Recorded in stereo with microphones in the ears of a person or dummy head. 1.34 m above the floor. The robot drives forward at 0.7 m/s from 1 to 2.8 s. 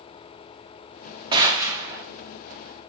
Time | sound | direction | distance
1.3 | a gunshot | 20° right (ahead or behind) | 0.7 m